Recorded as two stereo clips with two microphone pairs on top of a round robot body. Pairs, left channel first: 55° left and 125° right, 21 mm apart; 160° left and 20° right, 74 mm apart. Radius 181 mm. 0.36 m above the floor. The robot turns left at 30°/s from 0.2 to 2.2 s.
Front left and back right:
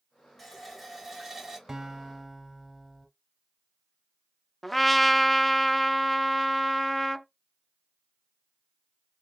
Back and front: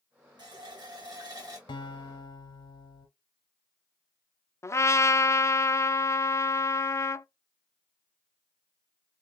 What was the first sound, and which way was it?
A running tap, 25° right.